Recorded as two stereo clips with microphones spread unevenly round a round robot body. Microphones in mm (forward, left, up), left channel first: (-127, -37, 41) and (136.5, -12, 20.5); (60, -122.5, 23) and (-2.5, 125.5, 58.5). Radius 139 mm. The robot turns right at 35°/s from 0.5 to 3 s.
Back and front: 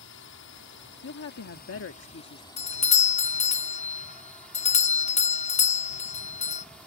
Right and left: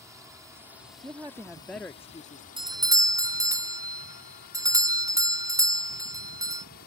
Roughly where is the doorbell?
Behind.